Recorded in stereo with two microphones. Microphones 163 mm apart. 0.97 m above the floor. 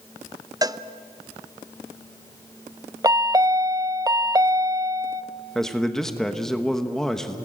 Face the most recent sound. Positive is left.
turn(degrees=5)  # may be behind; listen again after turning